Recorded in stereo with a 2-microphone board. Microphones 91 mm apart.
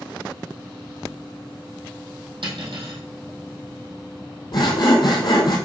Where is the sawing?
55° left (ahead or behind), 1.7 m.